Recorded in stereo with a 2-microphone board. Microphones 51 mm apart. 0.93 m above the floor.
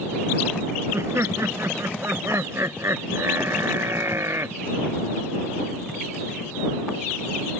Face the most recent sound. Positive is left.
turn(degrees=-60)  # may be behind; listen again after turning